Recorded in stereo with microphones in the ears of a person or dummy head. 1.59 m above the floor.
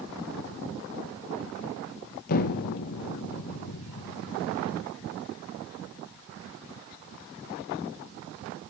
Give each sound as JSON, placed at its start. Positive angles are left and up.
{"t": 2.3, "sound": "an explosion", "side_deg": 50, "distance_m": 1.1}